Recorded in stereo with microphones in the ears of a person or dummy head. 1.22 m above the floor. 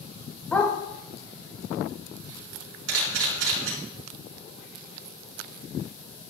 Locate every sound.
0.5 s a dog barking: 10° left (ahead or behind), 2 m
2.9 s a camera shutter: 80° right, 4 m